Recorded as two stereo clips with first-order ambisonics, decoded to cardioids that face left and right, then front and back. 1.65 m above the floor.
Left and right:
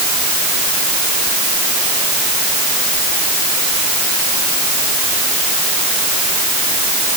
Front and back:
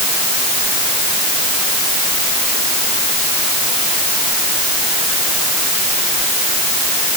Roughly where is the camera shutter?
No camera shutter in this recording.